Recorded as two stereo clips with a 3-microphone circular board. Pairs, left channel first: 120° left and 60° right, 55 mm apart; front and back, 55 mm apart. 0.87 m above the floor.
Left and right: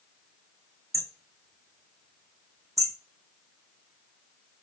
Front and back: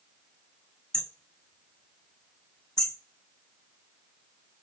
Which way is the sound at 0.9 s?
80° right.